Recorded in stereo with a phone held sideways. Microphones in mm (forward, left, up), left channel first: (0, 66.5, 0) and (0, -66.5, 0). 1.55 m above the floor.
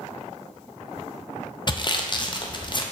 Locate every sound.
1.7 s sawing: 35° left (ahead or behind), 0.6 m